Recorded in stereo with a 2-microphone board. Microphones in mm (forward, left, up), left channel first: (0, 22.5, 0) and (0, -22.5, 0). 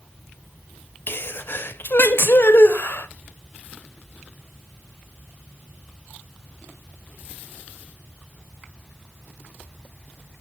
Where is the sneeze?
55° left (ahead or behind), 0.6 m.